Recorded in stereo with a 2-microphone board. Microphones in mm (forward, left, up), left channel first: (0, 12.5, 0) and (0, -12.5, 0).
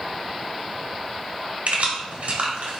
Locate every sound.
1.7 s keys jangling: 75° right (ahead or behind), 1.3 m